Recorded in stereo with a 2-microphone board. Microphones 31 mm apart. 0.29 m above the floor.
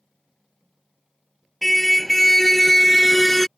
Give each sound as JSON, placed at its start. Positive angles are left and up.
{"t": 1.6, "sound": "a car horn", "side_deg": 5}